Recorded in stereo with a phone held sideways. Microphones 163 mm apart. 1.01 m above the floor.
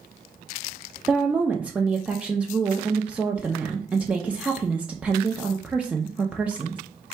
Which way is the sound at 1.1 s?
5° right (ahead or behind).